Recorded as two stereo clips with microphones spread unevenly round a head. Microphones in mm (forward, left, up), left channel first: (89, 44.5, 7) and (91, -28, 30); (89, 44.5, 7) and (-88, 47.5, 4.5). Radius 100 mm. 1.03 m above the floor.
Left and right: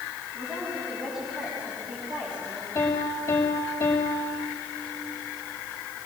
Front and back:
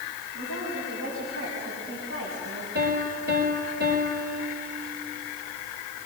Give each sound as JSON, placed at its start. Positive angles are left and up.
{"t": 0.3, "sound": "a woman speaking", "azimuth_deg": -155, "distance_m": 7.0}
{"t": 2.8, "sound": "a piano", "azimuth_deg": 160, "distance_m": 4.0}